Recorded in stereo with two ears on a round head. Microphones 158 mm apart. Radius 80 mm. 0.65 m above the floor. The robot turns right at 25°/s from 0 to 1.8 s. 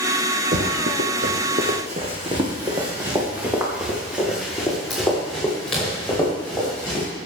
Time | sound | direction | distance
0.5 | running footsteps | 50° right (ahead or behind) | 1.9 m